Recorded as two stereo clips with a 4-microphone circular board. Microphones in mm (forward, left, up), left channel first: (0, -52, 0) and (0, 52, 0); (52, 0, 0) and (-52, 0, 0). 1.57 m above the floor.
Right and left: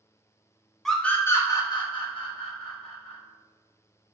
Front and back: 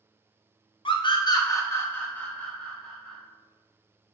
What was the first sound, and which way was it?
A scream, 5° right.